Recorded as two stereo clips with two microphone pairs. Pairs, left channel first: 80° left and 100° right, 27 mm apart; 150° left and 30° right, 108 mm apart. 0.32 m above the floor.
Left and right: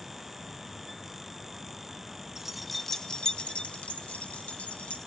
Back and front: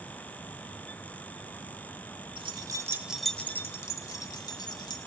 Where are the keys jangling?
30° right, 0.9 m; by 5.0 s 105° left, 2 m.